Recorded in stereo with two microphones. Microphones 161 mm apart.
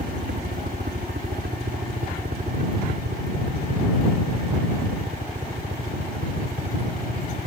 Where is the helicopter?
70° right (ahead or behind); by 7.5 s 65° right (ahead or behind).